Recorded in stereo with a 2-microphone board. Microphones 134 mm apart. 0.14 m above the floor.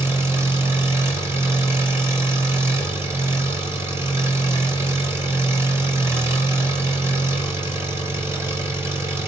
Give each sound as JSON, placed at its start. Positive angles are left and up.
{"t": 0.0, "sound": "an engine running", "side_deg": -20, "distance_m": 2.5}